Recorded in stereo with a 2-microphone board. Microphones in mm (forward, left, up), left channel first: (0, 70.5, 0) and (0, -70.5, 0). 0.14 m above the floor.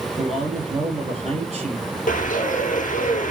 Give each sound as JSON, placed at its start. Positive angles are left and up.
{"t": 0.2, "sound": "a man speaking", "side_deg": -50, "distance_m": 3.0}
{"t": 2.1, "sound": "a bird", "side_deg": 70, "distance_m": 1.6}